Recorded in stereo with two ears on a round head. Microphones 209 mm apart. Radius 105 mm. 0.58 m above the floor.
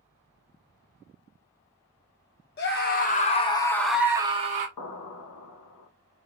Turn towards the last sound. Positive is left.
turn(degrees=75)  # may be behind; listen again after turning